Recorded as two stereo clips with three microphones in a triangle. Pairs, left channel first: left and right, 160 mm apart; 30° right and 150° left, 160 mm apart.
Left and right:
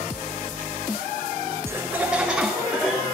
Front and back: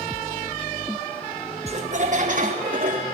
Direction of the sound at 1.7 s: 160° right.